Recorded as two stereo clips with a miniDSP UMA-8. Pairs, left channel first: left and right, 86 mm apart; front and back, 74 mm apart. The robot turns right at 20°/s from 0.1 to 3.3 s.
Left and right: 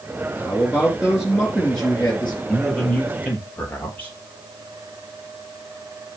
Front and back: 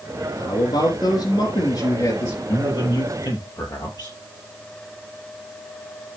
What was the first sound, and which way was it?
A man speaking, 20° right.